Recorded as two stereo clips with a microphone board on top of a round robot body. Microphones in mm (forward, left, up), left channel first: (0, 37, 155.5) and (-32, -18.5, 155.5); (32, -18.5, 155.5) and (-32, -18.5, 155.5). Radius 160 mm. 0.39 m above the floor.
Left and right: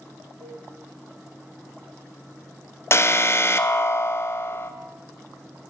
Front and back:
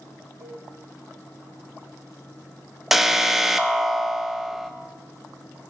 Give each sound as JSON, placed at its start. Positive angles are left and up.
{"t": 0.4, "sound": "a cowbell", "azimuth_deg": -130, "distance_m": 4.5}
{"t": 2.9, "sound": "an alarm", "azimuth_deg": 95, "distance_m": 0.7}